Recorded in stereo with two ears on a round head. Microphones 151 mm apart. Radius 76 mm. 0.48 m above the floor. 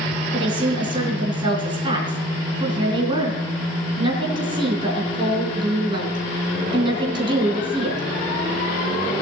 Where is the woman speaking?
30° right (ahead or behind), 4 m.